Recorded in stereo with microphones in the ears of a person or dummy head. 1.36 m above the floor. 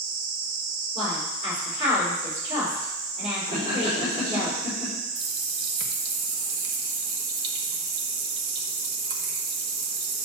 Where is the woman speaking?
35° right (ahead or behind), 4.5 m.